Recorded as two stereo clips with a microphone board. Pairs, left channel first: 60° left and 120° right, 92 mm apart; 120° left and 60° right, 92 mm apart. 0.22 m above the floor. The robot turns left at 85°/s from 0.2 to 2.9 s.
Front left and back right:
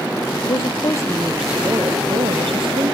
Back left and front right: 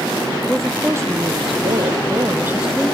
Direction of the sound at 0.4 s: 45° left.